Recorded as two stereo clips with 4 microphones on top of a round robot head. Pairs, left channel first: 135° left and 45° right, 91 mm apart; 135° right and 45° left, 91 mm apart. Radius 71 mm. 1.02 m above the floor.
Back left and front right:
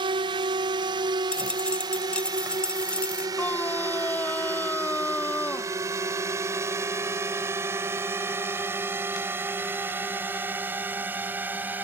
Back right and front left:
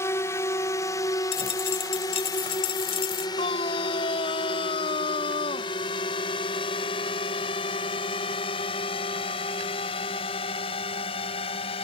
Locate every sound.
0.0 s a drone: 75° right; by 11.8 s 115° right
1.3 s a dropped coin: 150° right
3.4 s a scream: 155° right